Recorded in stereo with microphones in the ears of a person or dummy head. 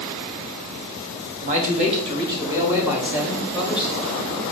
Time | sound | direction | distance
1.4 | a man speaking | 45° right (ahead or behind) | 0.8 m